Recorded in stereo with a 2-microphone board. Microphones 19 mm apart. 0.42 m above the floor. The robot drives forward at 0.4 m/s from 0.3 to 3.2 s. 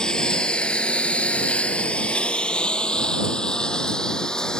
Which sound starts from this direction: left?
A lawn mower, at 0.0 s.